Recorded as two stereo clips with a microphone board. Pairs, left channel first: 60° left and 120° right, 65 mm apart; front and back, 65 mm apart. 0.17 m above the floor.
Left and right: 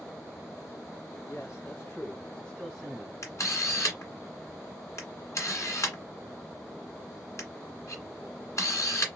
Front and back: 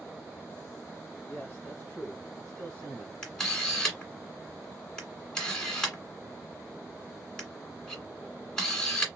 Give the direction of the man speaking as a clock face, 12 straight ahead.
10 o'clock.